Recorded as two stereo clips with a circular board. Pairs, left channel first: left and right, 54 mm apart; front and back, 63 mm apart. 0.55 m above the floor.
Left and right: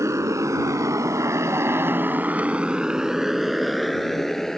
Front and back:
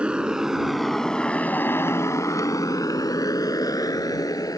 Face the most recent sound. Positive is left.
turn(degrees=10)